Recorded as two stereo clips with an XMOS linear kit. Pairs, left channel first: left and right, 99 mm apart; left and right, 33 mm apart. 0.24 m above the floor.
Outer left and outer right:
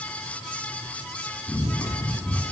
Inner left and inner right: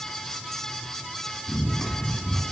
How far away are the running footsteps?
About 4 m.